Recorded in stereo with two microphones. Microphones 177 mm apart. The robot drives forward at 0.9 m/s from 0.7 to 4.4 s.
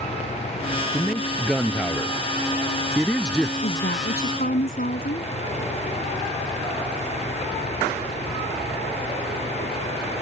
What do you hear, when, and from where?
0.9 s a man speaking: 5° left (ahead or behind)
3.6 s a woman speaking: 60° left (ahead or behind); by 5.3 s 50° left (ahead or behind)